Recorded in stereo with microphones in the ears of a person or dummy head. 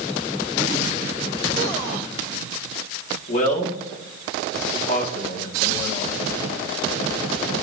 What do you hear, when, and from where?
3.3 s a man speaking: 50° left (ahead or behind), 3.5 m